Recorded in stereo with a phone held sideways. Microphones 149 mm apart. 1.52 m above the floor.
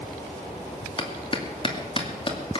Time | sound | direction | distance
1.0 | a clap | 35° left (ahead or behind) | 2.5 m